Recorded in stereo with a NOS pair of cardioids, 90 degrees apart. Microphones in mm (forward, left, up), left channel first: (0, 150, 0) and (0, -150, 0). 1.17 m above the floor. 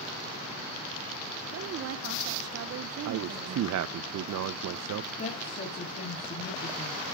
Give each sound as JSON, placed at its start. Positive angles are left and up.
{"t": 1.5, "sound": "a woman speaking", "azimuth_deg": -50, "distance_m": 0.8}
{"t": 3.0, "sound": "a man speaking", "azimuth_deg": -60, "distance_m": 0.7}
{"t": 5.2, "sound": "a woman speaking", "azimuth_deg": 30, "distance_m": 3.5}